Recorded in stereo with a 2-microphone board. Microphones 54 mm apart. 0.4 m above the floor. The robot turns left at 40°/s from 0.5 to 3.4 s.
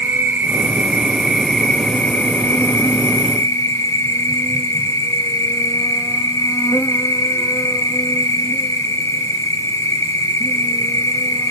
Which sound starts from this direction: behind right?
An insect, at 0.0 s.